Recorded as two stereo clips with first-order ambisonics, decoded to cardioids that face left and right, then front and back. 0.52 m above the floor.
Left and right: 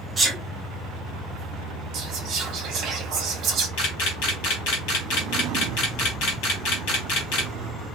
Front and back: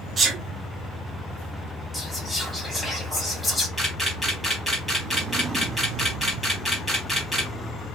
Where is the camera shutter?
90° left, 2.0 m.